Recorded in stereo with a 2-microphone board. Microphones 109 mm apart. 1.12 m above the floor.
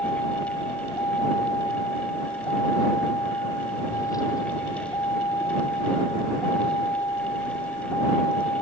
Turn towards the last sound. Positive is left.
turn(degrees=30)  # may be behind; listen again after turning